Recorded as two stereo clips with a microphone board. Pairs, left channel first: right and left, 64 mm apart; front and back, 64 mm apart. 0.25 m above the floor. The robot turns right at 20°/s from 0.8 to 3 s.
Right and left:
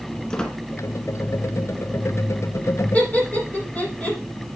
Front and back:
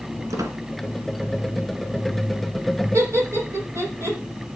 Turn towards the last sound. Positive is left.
turn(degrees=-155)